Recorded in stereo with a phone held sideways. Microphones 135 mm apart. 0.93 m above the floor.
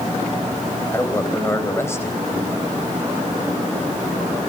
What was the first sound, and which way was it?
A man speaking, 20° left (ahead or behind).